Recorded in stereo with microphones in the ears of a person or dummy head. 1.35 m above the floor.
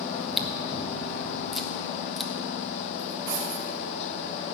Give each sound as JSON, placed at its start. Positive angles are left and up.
{"t": 0.1, "sound": "chewing", "side_deg": 0, "distance_m": 1.0}
{"t": 3.0, "sound": "cutlery clinking", "side_deg": -60, "distance_m": 3.5}